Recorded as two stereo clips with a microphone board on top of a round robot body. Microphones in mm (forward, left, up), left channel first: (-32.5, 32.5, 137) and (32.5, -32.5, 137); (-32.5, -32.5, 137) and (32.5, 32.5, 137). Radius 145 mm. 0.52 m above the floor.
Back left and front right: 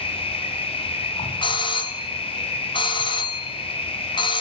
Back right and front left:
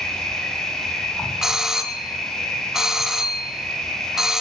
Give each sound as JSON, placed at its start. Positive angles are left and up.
{"t": 0.0, "sound": "an insect", "azimuth_deg": 140, "distance_m": 5.0}
{"t": 1.4, "sound": "a doorbell", "azimuth_deg": 130, "distance_m": 2.5}